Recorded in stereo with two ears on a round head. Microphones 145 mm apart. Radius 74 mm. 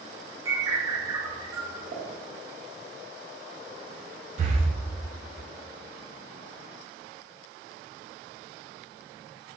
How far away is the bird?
About 0.6 m.